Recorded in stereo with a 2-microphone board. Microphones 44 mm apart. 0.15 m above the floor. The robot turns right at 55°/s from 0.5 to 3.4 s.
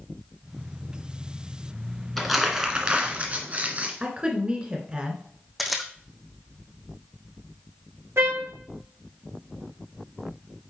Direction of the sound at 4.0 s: 25° right (ahead or behind).